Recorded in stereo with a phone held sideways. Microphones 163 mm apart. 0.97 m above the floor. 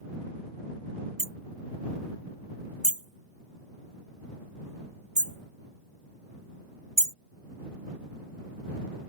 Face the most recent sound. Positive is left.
turn(degrees=-40)  # may be behind; listen again after turning